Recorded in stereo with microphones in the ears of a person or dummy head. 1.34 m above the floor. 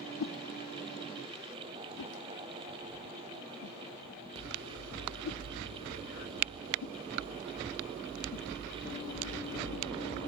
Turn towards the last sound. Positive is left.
turn(degrees=70)  # may be behind; listen again after turning